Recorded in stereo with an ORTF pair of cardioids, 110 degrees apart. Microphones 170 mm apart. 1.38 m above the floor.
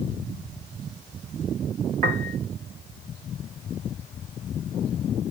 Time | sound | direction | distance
2.0 | a piano | 60° right | 0.8 m